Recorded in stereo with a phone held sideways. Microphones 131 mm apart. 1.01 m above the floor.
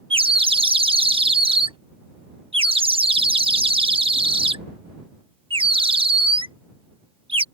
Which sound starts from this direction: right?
A bird, at 0.1 s.